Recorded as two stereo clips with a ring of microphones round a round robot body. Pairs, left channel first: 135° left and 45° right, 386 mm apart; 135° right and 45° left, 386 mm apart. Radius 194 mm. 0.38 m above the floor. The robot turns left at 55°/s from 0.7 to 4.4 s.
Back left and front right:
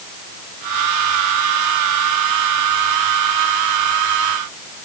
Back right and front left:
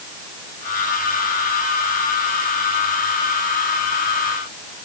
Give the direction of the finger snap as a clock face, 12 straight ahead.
I don't hear a finger snap.